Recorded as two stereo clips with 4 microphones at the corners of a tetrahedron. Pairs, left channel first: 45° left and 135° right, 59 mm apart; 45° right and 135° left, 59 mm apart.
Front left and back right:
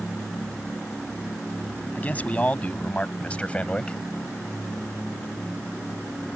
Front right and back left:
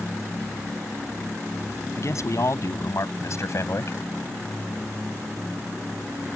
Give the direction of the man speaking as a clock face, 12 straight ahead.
1 o'clock.